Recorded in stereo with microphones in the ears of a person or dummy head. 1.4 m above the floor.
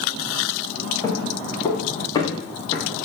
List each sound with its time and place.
1.0 s footsteps: 20° left (ahead or behind), 7.5 m; by 3.1 s 30° left (ahead or behind), 7 m